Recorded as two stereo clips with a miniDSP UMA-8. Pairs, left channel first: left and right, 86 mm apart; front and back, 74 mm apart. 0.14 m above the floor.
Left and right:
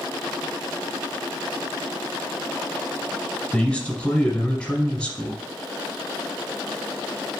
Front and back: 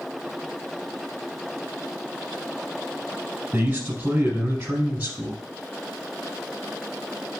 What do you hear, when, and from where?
3.5 s a man speaking: 155° left, 1.1 m